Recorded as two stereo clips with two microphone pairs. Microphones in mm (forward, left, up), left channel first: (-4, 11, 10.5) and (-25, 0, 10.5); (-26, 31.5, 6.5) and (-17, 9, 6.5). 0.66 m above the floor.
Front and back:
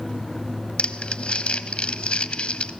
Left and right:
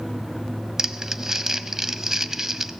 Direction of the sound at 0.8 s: 5° left.